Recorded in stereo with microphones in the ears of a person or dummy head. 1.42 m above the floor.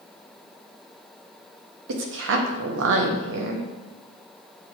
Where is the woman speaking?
70° right (ahead or behind), 0.8 m.